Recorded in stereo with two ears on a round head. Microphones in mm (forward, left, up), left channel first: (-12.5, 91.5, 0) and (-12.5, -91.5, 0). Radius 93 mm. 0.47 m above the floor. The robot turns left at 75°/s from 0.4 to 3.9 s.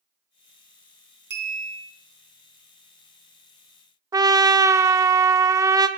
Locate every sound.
1.3 s a clink: 120° right, 2.5 m; by 1.9 s 165° right, 2.5 m
4.1 s a trumpet: 20° right (ahead or behind), 0.6 m